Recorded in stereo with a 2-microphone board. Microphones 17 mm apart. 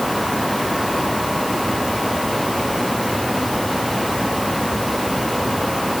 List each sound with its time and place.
Only background noise.